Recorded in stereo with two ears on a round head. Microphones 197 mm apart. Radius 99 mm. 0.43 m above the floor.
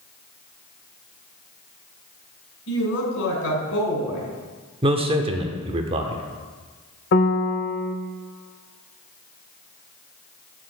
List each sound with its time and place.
2.7 s a woman speaking: 65° left (ahead or behind), 2.5 m
4.8 s a man speaking: 25° right (ahead or behind), 0.8 m
7.1 s a piano: 50° left (ahead or behind), 0.6 m